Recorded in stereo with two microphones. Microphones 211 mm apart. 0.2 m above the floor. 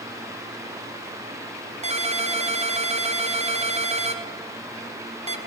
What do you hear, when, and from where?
1.8 s a ringtone: 30° right (ahead or behind), 0.9 m